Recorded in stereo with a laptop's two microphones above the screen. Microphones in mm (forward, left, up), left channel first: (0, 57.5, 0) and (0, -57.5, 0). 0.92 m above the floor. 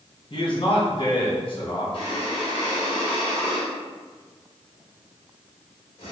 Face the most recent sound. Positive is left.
turn(degrees=50)  # may be behind; listen again after turning